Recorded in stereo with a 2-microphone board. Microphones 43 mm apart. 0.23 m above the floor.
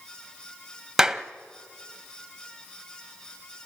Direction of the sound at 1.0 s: 10° right (ahead or behind).